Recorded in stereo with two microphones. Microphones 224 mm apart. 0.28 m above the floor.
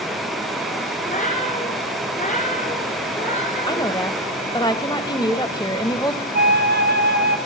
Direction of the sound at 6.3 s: 50° right (ahead or behind).